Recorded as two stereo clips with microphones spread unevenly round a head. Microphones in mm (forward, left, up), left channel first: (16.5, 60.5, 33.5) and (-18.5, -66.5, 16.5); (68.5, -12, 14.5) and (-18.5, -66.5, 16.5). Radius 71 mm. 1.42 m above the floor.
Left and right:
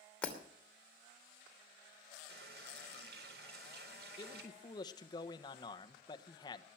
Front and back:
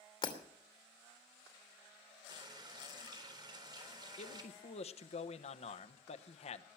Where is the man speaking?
15° left, 1.1 m.